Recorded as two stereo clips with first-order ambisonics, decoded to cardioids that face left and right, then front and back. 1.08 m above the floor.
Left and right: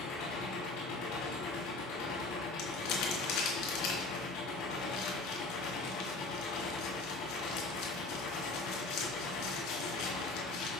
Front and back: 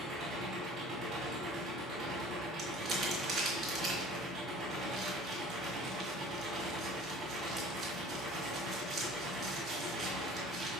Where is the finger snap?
No finger snap in this recording.